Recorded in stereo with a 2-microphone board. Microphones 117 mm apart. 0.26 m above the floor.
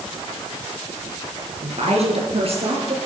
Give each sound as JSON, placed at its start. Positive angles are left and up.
{"t": 1.6, "sound": "a woman speaking", "side_deg": -65, "distance_m": 4.0}